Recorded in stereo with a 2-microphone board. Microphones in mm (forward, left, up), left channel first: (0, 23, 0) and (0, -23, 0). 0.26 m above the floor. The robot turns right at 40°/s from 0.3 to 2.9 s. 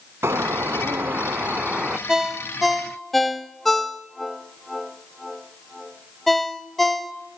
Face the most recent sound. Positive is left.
turn(degrees=5)  # may be behind; listen again after turning